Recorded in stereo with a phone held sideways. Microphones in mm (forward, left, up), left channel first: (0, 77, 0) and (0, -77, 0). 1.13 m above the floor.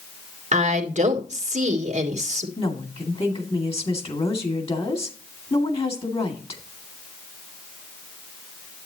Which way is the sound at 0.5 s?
50° right (ahead or behind).